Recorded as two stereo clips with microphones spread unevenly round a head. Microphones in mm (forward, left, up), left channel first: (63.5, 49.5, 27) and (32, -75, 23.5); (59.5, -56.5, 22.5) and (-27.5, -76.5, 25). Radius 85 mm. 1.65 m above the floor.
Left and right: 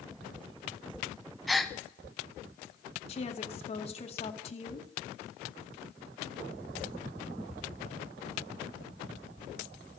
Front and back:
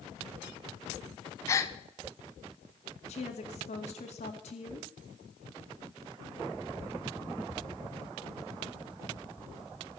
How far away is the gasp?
About 0.8 m.